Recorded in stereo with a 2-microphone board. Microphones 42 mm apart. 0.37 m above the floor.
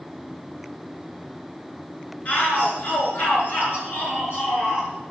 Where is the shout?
35° left (ahead or behind), 6.5 m; by 4.9 s 65° left (ahead or behind), 8 m.